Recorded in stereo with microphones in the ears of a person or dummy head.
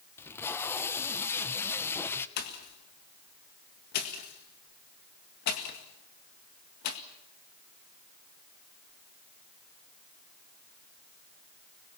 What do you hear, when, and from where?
0.2 s tape being pulled: 15° left (ahead or behind), 1.0 m
2.4 s a pop: 55° left (ahead or behind), 1.9 m